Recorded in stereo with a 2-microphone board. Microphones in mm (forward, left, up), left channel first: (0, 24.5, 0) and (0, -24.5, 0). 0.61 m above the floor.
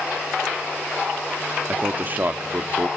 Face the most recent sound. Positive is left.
turn(degrees=-35)  # may be behind; listen again after turning